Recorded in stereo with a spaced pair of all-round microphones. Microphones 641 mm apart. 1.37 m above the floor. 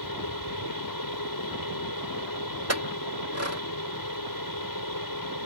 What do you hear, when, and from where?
0.0 s a fan: 30° left (ahead or behind)
2.7 s a clink: 25° right (ahead or behind)